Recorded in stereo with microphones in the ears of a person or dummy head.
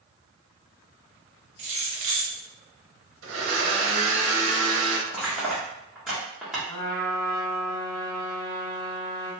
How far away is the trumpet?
About 1.8 m.